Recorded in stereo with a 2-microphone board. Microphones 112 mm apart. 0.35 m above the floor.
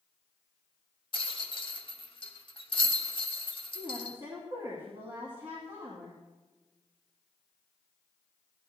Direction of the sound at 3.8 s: 50° right (ahead or behind).